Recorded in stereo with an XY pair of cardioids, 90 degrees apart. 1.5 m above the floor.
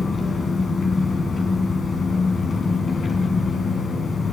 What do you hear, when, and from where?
0.0 s an engine running: 40° left, 4.5 m